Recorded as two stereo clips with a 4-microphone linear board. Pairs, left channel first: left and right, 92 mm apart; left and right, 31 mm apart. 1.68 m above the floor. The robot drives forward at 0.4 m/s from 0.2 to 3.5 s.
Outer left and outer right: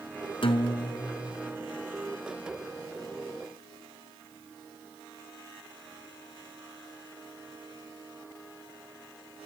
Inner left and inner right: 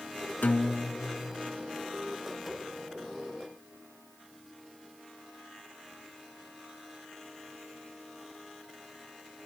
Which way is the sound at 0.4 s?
70° left (ahead or behind).